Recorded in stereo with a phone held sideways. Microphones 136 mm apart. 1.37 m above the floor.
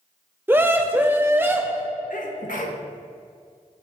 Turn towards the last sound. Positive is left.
turn(degrees=75)  # may be behind; listen again after turning